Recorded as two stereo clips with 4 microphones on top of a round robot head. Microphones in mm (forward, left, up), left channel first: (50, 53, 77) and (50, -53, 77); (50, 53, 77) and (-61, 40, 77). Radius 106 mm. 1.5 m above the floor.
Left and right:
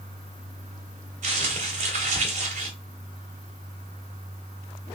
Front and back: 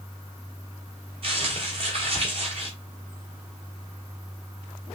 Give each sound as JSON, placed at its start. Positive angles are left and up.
{"t": 1.2, "sound": "crumpling", "azimuth_deg": -120, "distance_m": 0.8}